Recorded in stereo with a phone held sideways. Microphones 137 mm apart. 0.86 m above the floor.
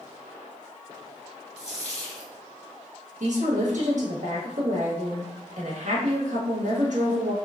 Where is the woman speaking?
60° right (ahead or behind), 1.4 m.